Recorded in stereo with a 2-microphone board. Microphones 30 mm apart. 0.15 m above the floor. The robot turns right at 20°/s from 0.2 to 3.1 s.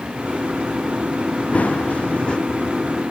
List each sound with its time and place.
1.5 s running footsteps: 55° left (ahead or behind); by 2.4 s 35° left (ahead or behind)